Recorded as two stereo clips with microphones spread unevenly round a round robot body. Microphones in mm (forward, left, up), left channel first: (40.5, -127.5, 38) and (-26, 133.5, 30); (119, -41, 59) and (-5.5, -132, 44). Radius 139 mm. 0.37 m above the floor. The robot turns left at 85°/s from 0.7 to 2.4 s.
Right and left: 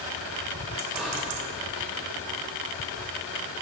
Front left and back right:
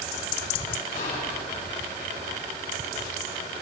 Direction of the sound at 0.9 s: 25° left.